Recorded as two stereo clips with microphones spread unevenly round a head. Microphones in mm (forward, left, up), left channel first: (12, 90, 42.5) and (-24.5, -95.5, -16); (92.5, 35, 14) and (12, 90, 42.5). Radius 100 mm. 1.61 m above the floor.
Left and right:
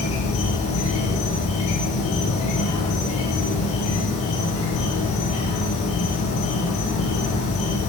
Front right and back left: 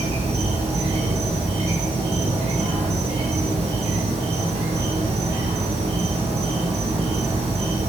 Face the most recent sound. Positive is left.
turn(degrees=145)